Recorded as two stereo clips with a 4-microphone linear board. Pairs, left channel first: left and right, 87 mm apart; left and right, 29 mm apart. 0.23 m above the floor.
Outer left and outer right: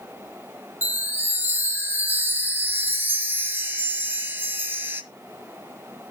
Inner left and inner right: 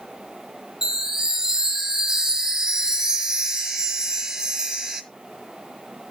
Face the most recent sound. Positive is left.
turn(degrees=-25)  # may be behind; listen again after turning